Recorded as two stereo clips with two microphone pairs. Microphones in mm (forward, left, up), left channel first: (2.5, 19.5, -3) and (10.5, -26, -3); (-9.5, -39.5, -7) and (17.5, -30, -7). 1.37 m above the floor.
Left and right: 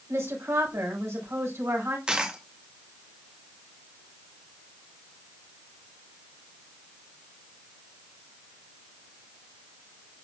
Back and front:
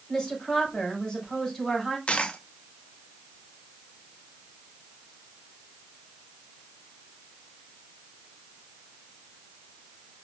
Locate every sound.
0.1 s a woman speaking: 85° right, 4.5 m
2.1 s a dropped coin: 145° right, 0.9 m